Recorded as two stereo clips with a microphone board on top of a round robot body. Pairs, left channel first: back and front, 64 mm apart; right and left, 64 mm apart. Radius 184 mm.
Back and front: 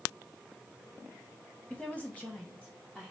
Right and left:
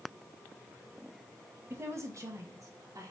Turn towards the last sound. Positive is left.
turn(degrees=110)